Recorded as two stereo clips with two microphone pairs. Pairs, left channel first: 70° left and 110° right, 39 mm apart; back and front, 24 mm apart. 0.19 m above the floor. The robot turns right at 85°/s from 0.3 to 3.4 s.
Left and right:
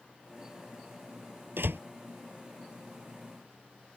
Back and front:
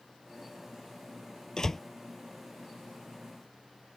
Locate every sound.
1.6 s a door slam: 120° right; by 1.8 s 100° right